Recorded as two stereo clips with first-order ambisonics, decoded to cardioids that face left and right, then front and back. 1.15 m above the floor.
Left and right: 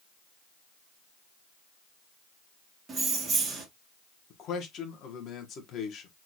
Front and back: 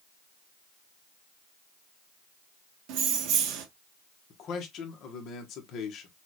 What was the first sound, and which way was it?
Keys jangling, 160° right.